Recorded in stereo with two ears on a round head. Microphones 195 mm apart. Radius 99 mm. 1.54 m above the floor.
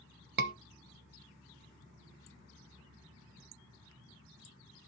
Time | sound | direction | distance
0.4 | a scream | 45° right (ahead or behind) | 0.9 m